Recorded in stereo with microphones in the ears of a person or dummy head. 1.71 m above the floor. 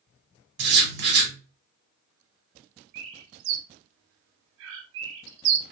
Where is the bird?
75° right (ahead or behind), 0.5 m.